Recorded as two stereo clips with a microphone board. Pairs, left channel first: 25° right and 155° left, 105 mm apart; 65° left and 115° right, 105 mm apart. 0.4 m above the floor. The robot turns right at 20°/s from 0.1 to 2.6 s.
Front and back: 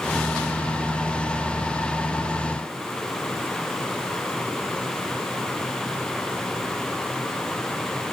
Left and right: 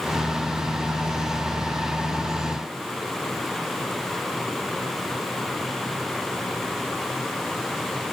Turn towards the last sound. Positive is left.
No sound to turn to.